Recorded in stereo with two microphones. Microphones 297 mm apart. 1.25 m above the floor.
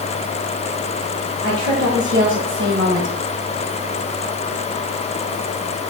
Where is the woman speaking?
65° right (ahead or behind), 2 m; by 3.2 s 30° right (ahead or behind), 1.3 m.